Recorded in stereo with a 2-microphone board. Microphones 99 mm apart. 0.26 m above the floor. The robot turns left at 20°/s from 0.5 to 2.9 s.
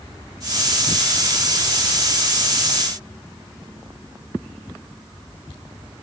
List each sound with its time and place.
Only background noise.